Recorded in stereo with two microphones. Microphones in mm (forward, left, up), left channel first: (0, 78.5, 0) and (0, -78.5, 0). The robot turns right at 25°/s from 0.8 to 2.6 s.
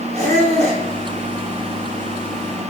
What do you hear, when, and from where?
0.1 s a squeak: 45° right (ahead or behind), 1.7 m